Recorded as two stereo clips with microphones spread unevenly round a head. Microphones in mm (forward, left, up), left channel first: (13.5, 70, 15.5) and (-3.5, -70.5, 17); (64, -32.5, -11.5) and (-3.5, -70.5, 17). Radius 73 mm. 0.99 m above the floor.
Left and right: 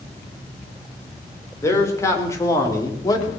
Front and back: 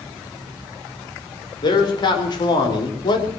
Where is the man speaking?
10° left, 3.5 m; by 3.3 s 15° left, 2.5 m.